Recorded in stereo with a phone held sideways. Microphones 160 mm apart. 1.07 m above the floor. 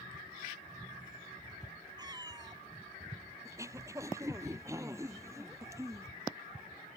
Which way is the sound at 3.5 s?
20° right (ahead or behind).